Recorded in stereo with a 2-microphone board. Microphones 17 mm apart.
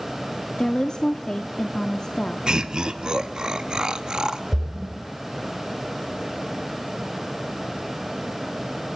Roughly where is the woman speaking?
Left.